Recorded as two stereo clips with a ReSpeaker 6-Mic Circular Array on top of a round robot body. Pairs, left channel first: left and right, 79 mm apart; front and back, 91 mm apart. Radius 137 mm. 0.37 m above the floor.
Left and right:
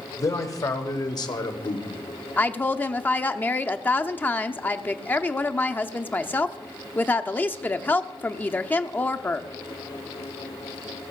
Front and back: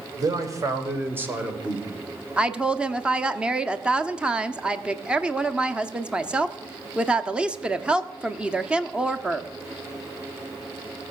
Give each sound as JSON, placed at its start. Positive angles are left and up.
{"t": 0.2, "sound": "a man speaking", "azimuth_deg": 135, "distance_m": 2.0}
{"t": 2.4, "sound": "a woman speaking", "azimuth_deg": 115, "distance_m": 0.9}